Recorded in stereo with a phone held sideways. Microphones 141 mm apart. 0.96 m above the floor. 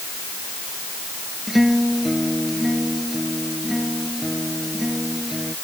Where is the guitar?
Centre (ahead or behind).